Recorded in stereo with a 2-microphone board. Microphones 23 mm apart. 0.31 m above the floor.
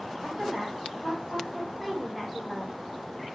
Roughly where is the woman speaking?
Centre.